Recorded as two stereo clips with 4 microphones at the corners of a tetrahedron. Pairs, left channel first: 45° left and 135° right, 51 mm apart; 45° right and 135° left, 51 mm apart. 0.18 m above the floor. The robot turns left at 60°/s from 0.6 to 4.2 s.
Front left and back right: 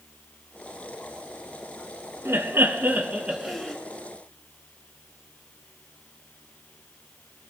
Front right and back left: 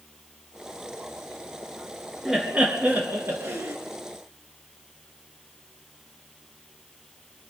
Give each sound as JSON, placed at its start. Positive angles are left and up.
{"t": 2.2, "sound": "laughter", "azimuth_deg": -145, "distance_m": 2.5}